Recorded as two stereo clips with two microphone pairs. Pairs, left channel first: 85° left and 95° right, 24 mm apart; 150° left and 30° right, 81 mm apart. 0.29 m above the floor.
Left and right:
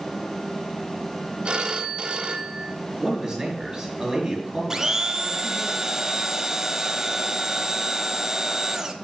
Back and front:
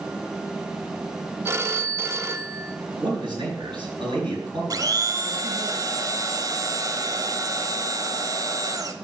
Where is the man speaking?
25° right, 5 m.